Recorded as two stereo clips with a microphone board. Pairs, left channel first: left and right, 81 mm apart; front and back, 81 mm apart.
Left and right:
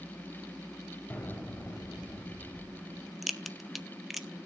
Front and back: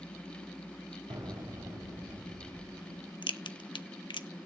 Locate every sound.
1.1 s an explosion: 160° left, 4 m
3.2 s a crack: 5° right, 1.0 m